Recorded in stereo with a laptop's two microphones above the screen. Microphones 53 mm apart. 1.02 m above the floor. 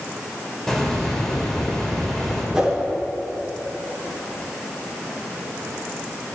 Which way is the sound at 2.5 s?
10° right (ahead or behind).